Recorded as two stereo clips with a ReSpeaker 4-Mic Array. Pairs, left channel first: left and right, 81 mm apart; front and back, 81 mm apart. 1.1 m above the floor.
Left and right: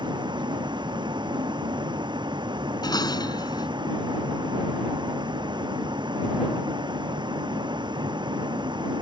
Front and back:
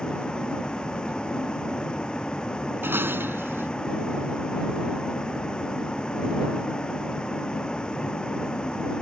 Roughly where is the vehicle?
Right.